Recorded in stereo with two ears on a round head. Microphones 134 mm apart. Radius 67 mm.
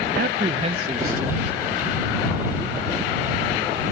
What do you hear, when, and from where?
0.2 s a man speaking: 70° right (ahead or behind); by 3.1 s 10° right (ahead or behind)